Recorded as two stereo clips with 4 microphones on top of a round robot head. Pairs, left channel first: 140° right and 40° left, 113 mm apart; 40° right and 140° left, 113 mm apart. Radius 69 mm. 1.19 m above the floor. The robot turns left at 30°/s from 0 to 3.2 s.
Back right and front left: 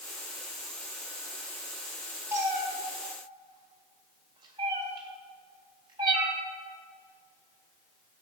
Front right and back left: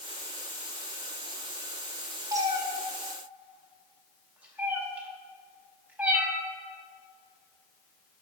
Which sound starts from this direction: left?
A cat meowing, at 2.3 s.